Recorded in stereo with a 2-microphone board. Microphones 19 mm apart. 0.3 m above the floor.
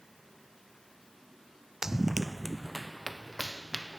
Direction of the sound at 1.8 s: 20° right (ahead or behind).